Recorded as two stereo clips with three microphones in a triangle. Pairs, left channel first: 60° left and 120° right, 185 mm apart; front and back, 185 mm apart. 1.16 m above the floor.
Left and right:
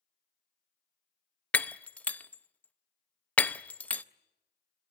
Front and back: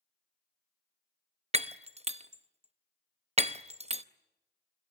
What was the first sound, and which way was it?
Breaking glass, 140° left.